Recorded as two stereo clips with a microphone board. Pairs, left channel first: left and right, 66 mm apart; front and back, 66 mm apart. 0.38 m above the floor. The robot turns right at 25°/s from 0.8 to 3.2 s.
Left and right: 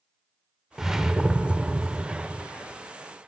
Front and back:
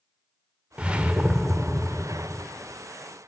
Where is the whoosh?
160° right, 0.6 m; by 2.5 s 115° right, 0.6 m.